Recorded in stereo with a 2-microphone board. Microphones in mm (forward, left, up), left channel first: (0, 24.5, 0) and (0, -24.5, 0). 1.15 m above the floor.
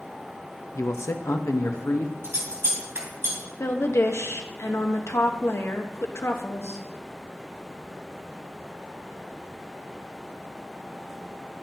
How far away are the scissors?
About 2.5 m.